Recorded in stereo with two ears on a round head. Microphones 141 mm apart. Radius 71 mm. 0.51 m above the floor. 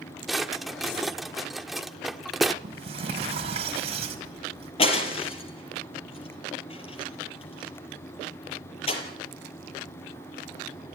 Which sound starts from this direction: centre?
A drawer, at 0.3 s.